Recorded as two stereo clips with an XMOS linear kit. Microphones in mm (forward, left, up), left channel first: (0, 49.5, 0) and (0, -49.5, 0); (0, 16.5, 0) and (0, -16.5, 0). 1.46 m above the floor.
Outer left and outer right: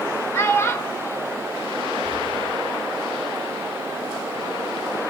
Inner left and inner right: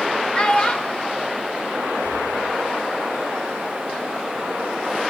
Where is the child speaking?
25° left (ahead or behind), 0.9 m.